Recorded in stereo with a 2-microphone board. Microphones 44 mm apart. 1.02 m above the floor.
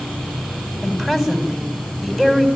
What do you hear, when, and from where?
0.8 s a woman speaking: 10° right (ahead or behind), 7.5 m